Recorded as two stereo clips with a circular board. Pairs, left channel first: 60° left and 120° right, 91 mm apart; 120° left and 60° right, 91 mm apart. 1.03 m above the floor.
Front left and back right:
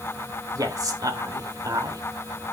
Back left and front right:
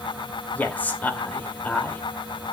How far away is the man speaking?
About 2.5 m.